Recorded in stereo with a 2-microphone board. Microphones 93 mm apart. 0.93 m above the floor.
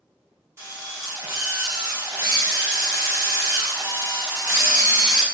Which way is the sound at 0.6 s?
30° right (ahead or behind).